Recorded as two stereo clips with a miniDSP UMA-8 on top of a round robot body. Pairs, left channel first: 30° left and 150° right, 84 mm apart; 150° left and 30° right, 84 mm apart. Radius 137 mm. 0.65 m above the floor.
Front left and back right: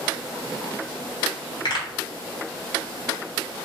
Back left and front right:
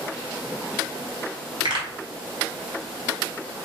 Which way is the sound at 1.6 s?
Straight ahead.